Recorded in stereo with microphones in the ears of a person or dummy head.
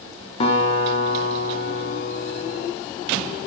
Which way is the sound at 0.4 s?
35° left (ahead or behind).